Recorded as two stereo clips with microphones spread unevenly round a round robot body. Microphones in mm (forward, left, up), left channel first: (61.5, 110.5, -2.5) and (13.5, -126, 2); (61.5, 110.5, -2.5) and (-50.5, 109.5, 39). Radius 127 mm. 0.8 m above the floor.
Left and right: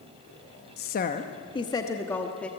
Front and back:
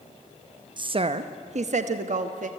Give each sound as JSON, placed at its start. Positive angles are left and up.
{"t": 0.8, "sound": "a woman speaking", "azimuth_deg": 120, "distance_m": 0.6}